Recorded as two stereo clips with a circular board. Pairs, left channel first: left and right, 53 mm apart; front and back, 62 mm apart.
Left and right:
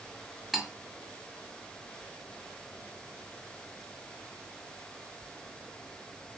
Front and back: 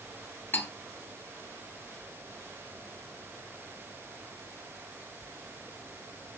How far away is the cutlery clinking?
About 0.6 m.